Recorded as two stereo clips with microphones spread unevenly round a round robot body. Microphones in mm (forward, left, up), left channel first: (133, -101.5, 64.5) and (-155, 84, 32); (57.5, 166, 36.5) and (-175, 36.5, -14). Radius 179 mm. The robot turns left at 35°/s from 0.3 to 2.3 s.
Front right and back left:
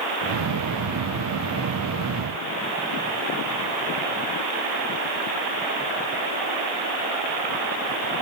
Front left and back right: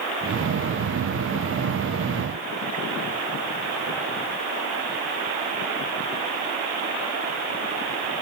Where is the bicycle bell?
I don't hear a bicycle bell.